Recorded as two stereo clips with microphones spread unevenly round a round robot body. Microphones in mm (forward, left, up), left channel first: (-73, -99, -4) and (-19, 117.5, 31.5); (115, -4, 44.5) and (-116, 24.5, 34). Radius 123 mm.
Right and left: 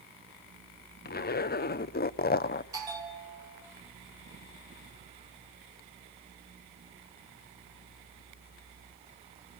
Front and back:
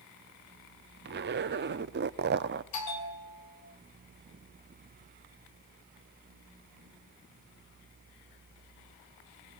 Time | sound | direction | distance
1.1 | a zipper | 145° right | 0.7 m
2.7 | a bell | straight ahead | 4.5 m